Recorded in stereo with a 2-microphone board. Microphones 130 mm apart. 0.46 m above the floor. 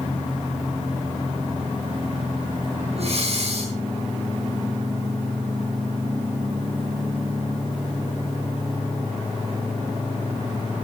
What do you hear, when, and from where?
3.0 s breathing: 55° right (ahead or behind), 5 m